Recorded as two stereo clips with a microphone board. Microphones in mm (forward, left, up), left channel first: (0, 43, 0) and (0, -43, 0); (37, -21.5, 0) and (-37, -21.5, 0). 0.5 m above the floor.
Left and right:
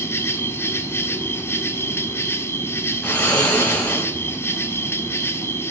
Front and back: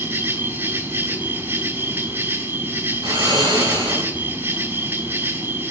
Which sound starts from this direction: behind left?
An insect, at 0.0 s.